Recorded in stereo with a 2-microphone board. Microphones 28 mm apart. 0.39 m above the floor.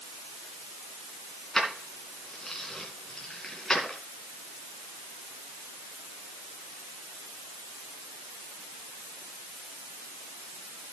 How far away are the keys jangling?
About 3 m.